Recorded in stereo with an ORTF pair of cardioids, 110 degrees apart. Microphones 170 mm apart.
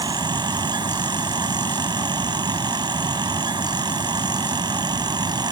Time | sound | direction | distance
0.0 | a fan | 25° right | ?